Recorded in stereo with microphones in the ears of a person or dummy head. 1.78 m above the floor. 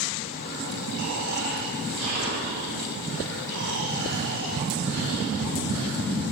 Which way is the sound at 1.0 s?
75° right (ahead or behind).